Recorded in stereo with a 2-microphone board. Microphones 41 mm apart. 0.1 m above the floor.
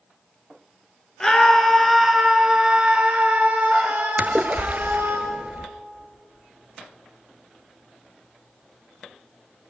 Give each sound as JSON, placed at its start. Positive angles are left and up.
{"t": 1.2, "sound": "a scream", "side_deg": 15, "distance_m": 1.4}
{"t": 4.2, "sound": "a splash", "side_deg": -45, "distance_m": 0.6}